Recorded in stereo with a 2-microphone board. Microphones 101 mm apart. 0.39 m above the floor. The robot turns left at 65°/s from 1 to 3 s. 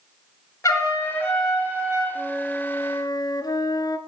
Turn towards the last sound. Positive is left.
turn(degrees=140)